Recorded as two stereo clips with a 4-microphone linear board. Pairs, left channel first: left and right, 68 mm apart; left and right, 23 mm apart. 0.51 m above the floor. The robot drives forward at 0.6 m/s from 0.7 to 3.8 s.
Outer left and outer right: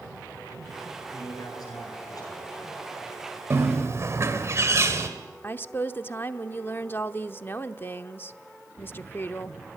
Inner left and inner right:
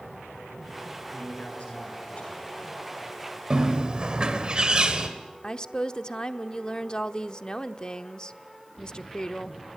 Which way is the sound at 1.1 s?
70° left (ahead or behind).